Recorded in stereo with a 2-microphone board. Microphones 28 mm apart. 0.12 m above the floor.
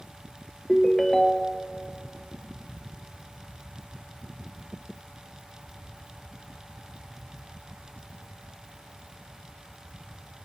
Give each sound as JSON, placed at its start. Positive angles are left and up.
{"t": 0.7, "sound": "a ringtone", "side_deg": 15, "distance_m": 1.4}